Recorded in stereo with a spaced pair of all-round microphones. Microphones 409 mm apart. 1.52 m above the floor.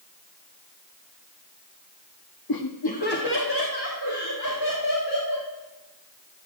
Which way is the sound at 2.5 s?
60° left (ahead or behind).